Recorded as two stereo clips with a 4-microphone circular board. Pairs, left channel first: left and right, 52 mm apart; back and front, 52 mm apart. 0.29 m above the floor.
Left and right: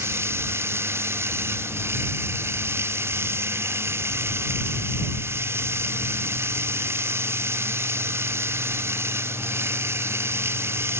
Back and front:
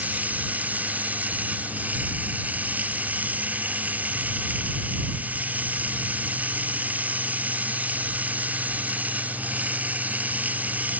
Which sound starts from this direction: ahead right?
Running water, at 0.0 s.